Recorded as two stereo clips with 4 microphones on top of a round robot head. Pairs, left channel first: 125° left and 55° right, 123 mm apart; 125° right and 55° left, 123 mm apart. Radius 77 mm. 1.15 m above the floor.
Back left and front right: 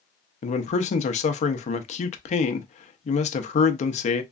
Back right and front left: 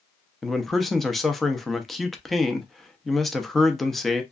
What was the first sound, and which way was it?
A man speaking, 145° left.